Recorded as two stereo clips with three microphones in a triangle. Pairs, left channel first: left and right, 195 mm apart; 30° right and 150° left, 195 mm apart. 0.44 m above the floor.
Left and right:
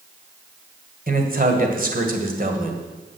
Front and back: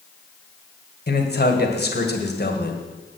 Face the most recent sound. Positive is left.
turn(degrees=-55)